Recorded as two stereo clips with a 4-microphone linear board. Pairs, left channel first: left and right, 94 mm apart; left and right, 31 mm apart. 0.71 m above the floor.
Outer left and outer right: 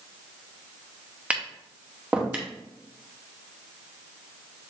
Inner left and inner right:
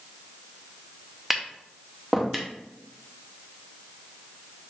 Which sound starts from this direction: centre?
Tapping, at 1.3 s.